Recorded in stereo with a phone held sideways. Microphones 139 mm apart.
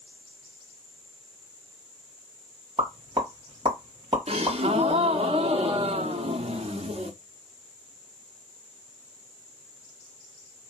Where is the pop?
35° right (ahead or behind), 1.8 m.